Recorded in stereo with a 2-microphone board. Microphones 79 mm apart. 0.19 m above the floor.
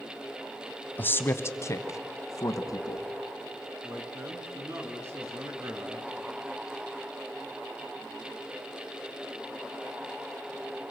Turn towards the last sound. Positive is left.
turn(degrees=-30)  # may be behind; listen again after turning